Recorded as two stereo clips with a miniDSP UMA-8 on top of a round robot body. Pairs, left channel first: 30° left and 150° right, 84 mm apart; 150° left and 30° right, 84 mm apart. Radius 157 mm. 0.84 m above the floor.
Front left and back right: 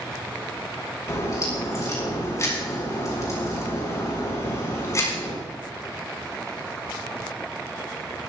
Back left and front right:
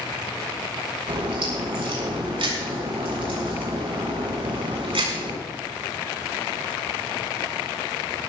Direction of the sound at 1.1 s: 25° right.